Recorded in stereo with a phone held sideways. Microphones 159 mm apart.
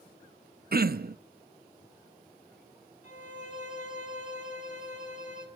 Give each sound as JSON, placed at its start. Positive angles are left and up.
{"t": 0.7, "sound": "throat clearing", "side_deg": -70, "distance_m": 0.6}
{"t": 3.0, "sound": "a violin", "side_deg": 50, "distance_m": 3.0}